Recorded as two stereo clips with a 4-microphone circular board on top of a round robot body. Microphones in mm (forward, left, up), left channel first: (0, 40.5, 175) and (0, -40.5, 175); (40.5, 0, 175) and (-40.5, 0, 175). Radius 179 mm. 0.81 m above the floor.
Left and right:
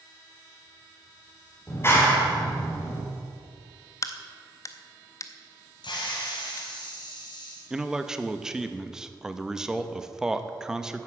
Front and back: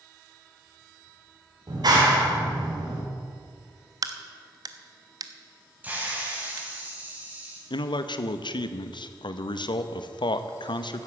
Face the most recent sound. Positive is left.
turn(degrees=-10)